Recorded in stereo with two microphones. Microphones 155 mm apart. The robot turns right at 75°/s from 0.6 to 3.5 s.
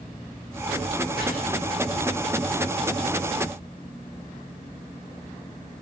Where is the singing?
No singing in this recording.